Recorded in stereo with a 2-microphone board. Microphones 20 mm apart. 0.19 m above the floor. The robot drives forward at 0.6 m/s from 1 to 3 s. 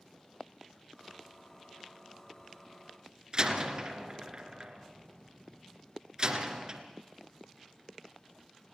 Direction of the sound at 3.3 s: 35° right (ahead or behind).